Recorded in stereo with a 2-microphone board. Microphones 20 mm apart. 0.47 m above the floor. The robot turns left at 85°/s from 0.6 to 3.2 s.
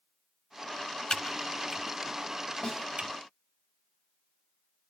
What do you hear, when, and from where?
1.1 s typing on a keyboard: 55° left (ahead or behind), 1.2 m; by 3.1 s 65° right (ahead or behind), 1.2 m
2.6 s a snare drum: 75° left (ahead or behind), 5 m; by 2.9 s 65° left (ahead or behind), 5 m